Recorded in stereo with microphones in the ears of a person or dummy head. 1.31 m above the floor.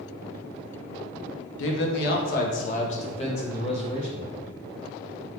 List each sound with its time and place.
1.6 s a man speaking: 80° left, 0.6 m; by 4.4 s 35° left (ahead or behind), 1.8 m